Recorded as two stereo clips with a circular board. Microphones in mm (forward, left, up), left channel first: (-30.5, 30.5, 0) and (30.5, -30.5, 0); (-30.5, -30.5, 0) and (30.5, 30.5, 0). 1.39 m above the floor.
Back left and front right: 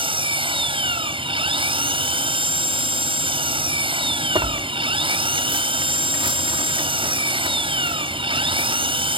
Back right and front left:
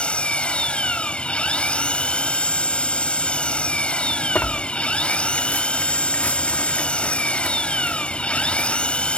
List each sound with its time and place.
0.0 s an engine running: 55° right
4.3 s tearing paper: 65° right